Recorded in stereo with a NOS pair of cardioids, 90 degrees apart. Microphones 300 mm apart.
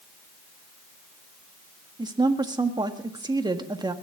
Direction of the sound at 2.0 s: 15° right.